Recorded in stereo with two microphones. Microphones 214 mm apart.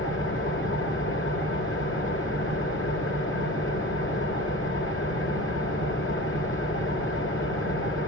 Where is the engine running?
70° left (ahead or behind), 2 m.